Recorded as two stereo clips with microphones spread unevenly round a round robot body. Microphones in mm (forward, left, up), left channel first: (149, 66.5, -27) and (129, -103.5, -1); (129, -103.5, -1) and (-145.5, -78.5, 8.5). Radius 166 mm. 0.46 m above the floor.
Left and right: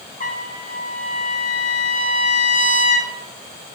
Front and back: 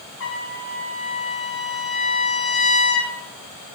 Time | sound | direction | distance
0.2 | a trumpet | 45° left | 3 m